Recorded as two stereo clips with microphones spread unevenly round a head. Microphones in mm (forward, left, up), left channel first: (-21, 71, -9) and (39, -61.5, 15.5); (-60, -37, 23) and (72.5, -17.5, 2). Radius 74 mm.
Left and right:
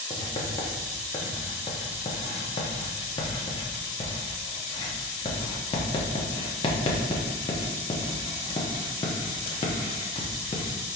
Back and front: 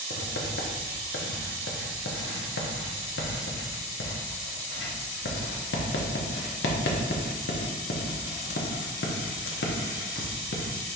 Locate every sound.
0.1 s writing: 175° left, 0.8 m